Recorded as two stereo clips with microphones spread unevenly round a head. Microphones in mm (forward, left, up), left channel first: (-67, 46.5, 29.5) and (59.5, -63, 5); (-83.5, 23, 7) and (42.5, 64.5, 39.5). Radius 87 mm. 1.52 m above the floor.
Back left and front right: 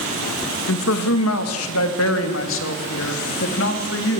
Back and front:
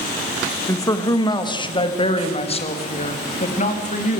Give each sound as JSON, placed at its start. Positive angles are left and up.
{"t": 0.7, "sound": "a man speaking", "azimuth_deg": 130, "distance_m": 2.0}